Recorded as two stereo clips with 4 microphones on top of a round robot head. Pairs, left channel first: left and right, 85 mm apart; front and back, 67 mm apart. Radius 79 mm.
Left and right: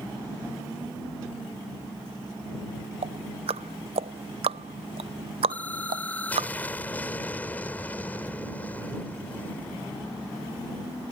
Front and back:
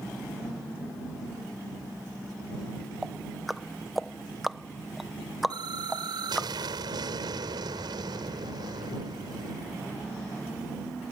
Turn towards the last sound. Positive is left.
turn(degrees=165)